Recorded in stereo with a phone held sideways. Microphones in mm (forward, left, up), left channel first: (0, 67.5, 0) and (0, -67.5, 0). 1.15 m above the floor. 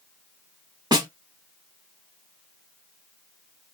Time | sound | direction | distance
0.9 | a snare drum | 30° right (ahead or behind) | 1.2 m